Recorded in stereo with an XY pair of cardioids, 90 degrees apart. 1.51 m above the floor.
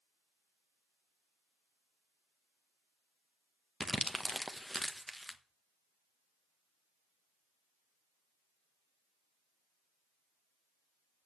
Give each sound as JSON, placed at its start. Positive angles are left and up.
{"t": 3.8, "sound": "crumpling", "azimuth_deg": 5, "distance_m": 1.2}